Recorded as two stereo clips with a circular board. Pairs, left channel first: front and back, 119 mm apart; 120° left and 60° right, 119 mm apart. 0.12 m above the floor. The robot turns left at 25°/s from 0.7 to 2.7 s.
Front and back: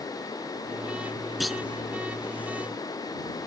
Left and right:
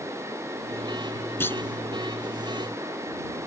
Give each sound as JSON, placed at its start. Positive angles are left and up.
{"t": 1.4, "sound": "a clunk", "azimuth_deg": 90}